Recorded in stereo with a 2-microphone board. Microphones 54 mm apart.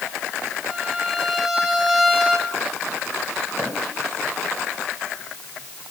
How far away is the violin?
About 2.5 m.